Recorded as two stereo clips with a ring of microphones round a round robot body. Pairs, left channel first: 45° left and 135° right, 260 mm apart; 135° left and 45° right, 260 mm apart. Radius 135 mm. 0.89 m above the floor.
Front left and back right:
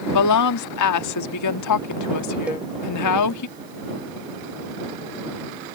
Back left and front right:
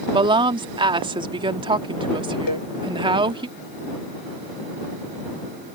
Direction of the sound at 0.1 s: 30° left.